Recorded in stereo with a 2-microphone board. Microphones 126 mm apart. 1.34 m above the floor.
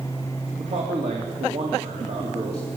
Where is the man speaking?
60° right (ahead or behind), 3 m.